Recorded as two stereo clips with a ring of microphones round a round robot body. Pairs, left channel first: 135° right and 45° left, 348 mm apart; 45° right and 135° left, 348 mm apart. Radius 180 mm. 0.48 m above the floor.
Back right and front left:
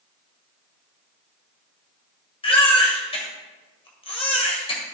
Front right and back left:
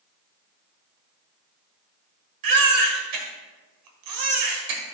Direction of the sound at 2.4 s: 150° left.